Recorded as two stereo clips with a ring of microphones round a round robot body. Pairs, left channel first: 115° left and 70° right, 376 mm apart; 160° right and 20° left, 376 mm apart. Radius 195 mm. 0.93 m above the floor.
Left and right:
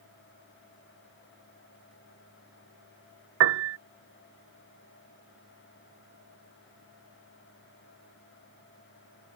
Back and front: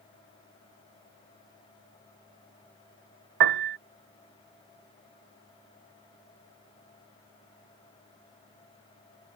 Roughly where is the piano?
Ahead.